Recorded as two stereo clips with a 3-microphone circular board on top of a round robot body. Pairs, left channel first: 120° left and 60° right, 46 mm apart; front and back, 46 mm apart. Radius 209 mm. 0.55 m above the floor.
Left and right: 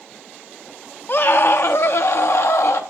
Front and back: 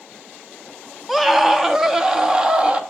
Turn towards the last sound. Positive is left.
turn(degrees=110)